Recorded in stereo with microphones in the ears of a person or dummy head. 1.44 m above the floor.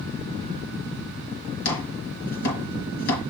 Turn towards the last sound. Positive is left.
turn(degrees=70)  # may be behind; listen again after turning